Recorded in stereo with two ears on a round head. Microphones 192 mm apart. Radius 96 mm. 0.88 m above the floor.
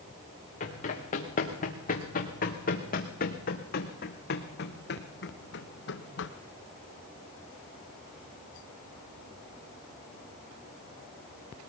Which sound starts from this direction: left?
Running footsteps, at 0.6 s.